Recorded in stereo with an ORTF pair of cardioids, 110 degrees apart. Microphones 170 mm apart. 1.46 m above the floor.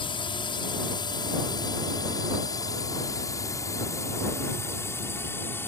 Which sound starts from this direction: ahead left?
A drone, at 0.0 s.